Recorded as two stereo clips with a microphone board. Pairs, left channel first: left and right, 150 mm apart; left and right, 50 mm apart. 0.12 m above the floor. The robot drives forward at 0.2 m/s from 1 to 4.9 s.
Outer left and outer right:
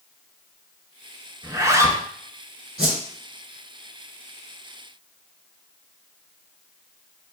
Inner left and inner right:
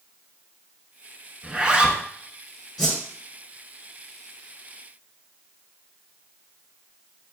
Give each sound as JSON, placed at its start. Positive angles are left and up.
{"t": 1.4, "sound": "a zipper", "side_deg": -20, "distance_m": 0.5}
{"t": 2.8, "sound": "a whoosh", "side_deg": -5, "distance_m": 1.6}